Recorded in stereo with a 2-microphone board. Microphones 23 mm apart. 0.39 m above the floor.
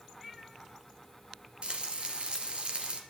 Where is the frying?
50° right (ahead or behind), 2 m.